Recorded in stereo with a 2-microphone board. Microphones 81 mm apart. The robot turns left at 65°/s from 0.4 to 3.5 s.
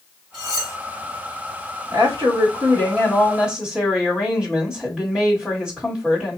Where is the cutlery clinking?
75° left (ahead or behind), 1.7 m; by 0.8 s 50° left (ahead or behind), 1.7 m.